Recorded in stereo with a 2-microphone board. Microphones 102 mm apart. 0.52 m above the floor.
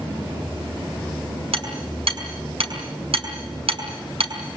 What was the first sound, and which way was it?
Hammering, 80° right.